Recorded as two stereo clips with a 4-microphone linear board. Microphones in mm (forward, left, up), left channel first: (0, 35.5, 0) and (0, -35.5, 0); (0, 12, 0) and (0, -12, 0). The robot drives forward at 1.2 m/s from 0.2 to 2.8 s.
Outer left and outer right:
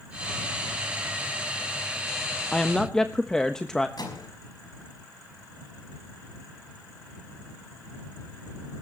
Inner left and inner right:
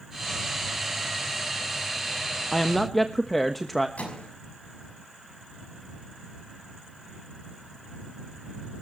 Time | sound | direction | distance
2.5 | a woman speaking | 15° left (ahead or behind) | 0.8 m
4.0 | a microwave | 75° left (ahead or behind) | 5.5 m